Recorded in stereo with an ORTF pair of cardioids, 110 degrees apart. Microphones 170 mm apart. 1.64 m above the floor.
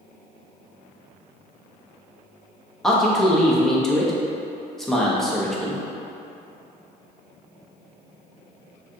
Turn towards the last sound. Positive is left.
turn(degrees=0)